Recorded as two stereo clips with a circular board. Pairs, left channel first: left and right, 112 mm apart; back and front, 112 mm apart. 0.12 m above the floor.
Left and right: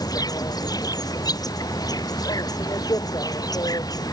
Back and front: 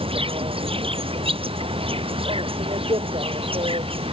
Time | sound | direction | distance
0.0 | an insect | 35° left | ?